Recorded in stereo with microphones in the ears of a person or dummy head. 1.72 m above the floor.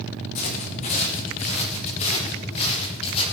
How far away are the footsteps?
About 5 m.